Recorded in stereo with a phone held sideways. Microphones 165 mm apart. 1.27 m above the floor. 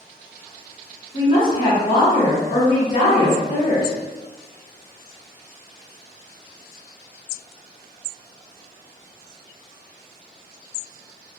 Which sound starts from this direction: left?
A woman speaking, at 1.1 s.